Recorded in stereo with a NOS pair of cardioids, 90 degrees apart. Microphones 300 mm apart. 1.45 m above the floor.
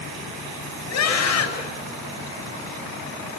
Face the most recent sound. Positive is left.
turn(degrees=60)